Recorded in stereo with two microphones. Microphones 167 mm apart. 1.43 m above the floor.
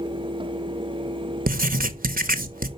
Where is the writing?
60° right (ahead or behind), 0.8 m.